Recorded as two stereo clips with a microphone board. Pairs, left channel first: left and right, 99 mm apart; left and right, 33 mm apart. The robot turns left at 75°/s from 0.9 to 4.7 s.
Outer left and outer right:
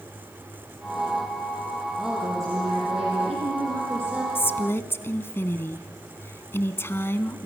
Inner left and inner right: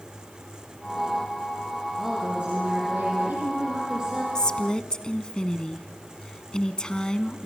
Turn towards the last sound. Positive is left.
turn(degrees=25)  # may be behind; listen again after turning